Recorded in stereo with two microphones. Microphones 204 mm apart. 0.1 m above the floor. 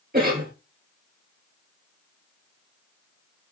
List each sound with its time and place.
0.1 s a cough: 45° right (ahead or behind), 1.7 m